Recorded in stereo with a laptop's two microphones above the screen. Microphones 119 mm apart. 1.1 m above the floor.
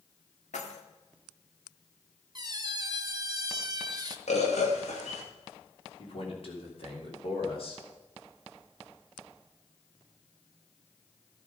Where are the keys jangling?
75° left (ahead or behind), 1.7 m.